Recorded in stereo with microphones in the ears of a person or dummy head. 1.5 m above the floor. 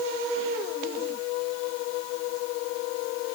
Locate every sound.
Only background noise.